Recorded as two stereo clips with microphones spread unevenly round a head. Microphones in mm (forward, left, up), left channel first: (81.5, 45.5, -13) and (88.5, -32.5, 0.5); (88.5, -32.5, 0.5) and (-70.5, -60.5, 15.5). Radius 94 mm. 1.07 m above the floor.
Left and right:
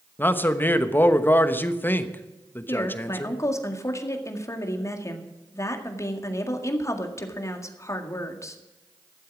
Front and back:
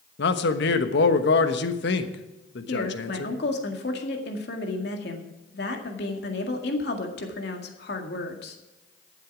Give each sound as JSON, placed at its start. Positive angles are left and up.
{"t": 0.2, "sound": "a man speaking", "azimuth_deg": 35, "distance_m": 1.1}
{"t": 2.7, "sound": "a woman speaking", "azimuth_deg": 45, "distance_m": 1.9}